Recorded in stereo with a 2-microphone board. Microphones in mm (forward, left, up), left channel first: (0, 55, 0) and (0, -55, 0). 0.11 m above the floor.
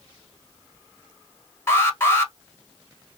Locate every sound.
1.7 s an alarm: 25° left (ahead or behind), 1.1 m